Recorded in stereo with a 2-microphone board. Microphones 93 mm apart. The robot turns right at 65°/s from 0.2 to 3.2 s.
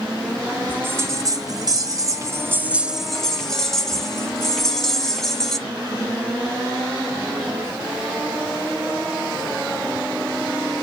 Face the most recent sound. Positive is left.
turn(degrees=10)